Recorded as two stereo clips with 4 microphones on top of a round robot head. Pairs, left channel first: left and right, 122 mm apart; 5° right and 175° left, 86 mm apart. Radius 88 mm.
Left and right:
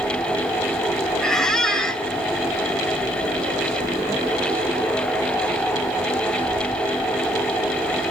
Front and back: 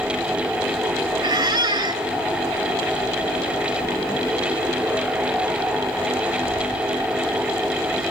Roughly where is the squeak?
Behind.